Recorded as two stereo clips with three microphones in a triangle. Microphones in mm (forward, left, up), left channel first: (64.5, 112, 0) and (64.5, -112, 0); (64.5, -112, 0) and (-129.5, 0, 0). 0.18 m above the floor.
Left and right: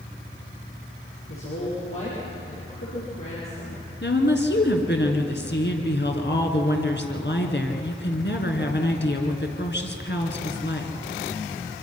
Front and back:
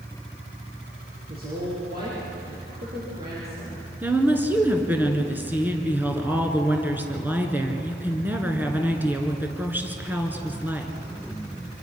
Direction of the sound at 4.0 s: 70° left.